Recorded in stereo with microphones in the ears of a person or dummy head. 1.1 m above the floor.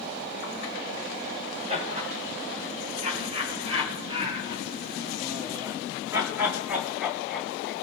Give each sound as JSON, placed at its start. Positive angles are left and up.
{"t": 1.7, "sound": "laughter", "side_deg": -40, "distance_m": 5.0}